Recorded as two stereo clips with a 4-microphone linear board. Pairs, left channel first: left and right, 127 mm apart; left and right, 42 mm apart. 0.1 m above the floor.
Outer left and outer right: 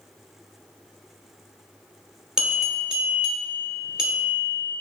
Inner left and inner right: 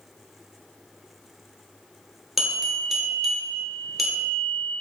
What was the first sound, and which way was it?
A bell, 5° right (ahead or behind).